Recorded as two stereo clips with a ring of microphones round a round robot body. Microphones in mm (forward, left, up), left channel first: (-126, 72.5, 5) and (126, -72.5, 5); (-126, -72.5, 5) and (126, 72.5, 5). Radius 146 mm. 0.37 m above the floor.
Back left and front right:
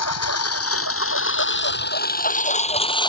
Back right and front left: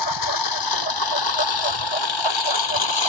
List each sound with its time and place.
0.0 s a lawn mower: 170° right; by 3.1 s 135° right